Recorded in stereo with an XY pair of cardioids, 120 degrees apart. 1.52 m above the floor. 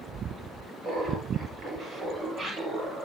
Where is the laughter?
60° right, 6 m; by 3.1 s 50° right, 7 m.